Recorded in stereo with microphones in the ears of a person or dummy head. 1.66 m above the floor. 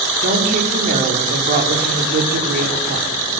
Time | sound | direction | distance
0.2 | a woman speaking | 45° right (ahead or behind) | 5.5 m